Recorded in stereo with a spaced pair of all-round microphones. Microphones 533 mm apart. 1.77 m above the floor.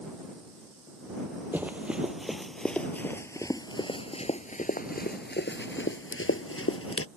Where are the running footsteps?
5° right (ahead or behind); by 7.1 s 25° left (ahead or behind).